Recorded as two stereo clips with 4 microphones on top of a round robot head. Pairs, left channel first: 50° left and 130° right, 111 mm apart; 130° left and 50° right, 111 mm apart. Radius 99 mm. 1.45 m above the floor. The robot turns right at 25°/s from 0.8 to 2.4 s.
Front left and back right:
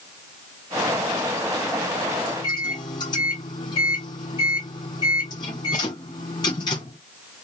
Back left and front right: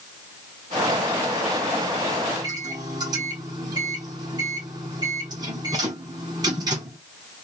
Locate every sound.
2.3 s a microwave: straight ahead, 0.6 m